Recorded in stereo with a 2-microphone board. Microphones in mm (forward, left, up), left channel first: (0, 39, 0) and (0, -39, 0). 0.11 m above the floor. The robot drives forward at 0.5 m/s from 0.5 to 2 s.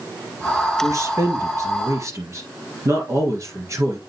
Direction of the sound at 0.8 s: 40° right (ahead or behind).